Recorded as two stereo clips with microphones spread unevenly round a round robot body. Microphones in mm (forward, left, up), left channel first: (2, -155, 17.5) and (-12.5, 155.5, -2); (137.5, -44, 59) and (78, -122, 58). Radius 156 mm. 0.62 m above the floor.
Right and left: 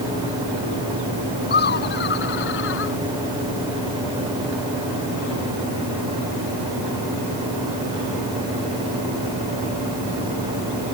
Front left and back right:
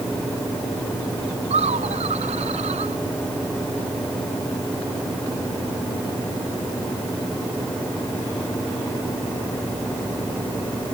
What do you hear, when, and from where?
1.5 s laughter: 150° right; by 3.0 s 140° right